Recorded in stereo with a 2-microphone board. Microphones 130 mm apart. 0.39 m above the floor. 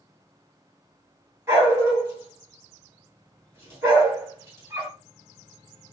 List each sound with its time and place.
1.5 s a dog barking: 20° right (ahead or behind), 2 m